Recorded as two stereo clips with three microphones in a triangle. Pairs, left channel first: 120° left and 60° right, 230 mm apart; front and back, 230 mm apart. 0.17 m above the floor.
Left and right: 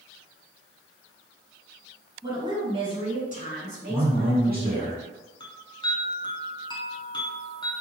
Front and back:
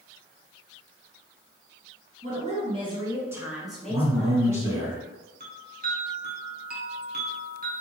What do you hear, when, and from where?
2.2 s a woman speaking: 135° right, 1.8 m; by 4.9 s 50° right, 1.7 m
3.9 s a man speaking: 110° right, 1.4 m
5.4 s a chime: straight behind, 0.9 m